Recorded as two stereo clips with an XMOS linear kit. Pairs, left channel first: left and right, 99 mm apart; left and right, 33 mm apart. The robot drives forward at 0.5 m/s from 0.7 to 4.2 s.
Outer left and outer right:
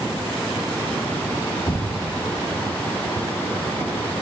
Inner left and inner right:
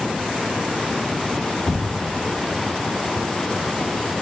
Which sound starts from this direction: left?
An explosion, at 1.7 s.